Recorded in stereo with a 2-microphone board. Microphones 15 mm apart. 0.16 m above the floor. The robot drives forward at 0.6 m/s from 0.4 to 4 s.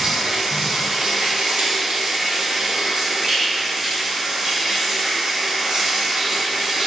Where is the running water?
65° right (ahead or behind), 1.8 m; by 6.9 s 45° right (ahead or behind), 2 m.